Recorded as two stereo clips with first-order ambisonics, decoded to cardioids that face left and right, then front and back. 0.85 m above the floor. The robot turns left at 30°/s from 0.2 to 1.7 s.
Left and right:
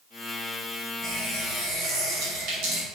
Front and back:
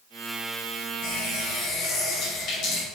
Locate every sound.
1.0 s a running tap: 30° right, 4 m; by 2.8 s 50° right, 4 m